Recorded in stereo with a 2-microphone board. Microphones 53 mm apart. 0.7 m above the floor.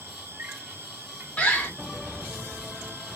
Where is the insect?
45° right (ahead or behind), 2.0 m.